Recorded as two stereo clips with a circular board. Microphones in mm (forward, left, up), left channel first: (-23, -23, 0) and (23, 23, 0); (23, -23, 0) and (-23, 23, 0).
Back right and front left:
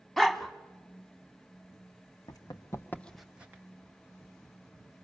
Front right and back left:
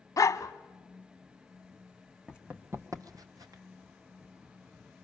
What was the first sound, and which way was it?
A dog barking, 50° right.